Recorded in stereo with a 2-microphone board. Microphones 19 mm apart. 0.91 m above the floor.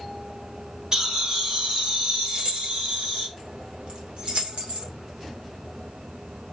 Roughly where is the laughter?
Right.